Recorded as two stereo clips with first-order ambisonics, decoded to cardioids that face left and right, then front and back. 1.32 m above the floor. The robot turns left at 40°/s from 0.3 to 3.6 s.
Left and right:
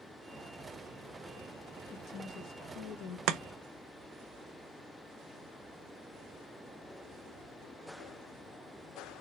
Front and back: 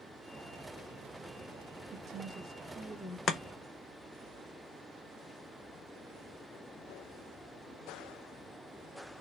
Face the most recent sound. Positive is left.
turn(degrees=-75)